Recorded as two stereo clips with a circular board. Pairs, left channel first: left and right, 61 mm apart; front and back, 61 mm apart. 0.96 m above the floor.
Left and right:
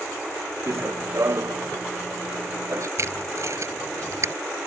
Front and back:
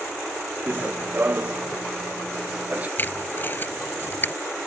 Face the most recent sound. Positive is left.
turn(degrees=-55)